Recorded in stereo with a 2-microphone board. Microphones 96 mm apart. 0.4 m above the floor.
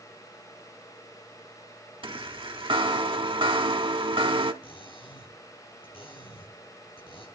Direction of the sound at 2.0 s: 65° right (ahead or behind).